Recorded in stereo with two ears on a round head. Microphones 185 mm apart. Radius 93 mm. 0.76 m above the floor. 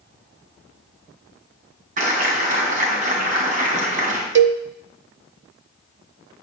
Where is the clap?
40° right (ahead or behind), 4.5 m.